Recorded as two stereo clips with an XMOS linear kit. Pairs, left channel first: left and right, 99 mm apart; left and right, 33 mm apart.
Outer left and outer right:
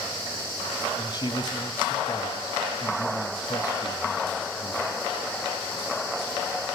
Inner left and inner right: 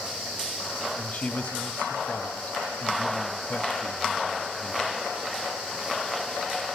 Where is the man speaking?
45° left (ahead or behind), 1.6 m.